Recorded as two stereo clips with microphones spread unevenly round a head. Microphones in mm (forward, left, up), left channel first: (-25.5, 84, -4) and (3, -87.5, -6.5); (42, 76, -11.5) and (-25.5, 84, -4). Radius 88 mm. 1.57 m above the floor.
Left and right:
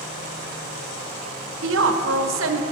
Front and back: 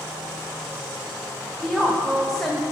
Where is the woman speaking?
95° right, 0.8 m.